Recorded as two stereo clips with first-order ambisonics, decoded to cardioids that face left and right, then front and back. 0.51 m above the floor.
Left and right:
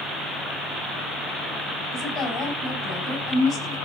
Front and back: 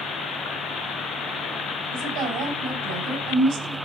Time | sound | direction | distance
1.9 | a woman speaking | 155° left | 3.5 m